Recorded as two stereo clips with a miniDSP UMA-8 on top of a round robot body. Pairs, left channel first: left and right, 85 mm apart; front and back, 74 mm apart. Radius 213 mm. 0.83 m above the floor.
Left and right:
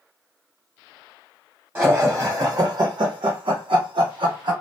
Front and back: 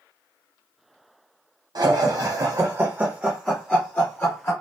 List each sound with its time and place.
1.8 s laughter: 160° right, 0.9 m; by 4.5 s 60° right, 1.1 m